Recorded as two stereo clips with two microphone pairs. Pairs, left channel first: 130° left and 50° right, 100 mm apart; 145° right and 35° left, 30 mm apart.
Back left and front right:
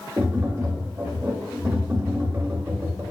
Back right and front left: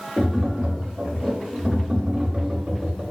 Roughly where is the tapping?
Ahead.